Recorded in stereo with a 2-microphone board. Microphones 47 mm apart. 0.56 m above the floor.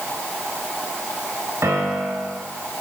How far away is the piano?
About 1.5 m.